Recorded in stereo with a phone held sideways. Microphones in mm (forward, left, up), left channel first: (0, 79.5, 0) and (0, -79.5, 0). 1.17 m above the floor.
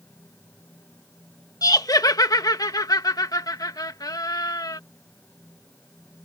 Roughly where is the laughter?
Left.